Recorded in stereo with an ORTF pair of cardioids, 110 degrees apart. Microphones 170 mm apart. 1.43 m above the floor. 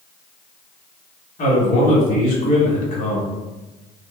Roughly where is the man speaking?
Ahead left.